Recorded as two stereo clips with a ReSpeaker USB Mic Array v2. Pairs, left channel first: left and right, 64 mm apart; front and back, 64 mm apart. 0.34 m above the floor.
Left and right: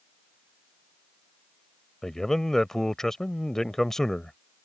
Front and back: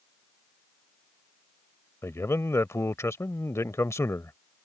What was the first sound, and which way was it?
A man speaking, 10° left.